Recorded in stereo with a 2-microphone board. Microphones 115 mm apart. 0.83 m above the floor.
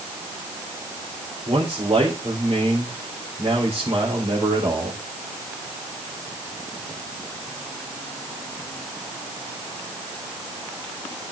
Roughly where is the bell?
No bell in this recording.